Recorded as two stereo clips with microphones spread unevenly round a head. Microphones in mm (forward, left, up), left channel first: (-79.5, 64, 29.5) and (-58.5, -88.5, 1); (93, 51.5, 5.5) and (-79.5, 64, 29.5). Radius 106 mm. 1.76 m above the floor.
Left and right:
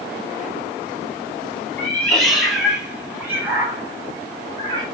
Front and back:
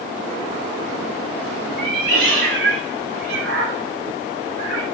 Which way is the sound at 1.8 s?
170° left.